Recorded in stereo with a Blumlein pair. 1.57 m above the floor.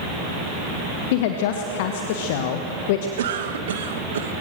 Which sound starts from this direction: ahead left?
A woman speaking, at 1.1 s.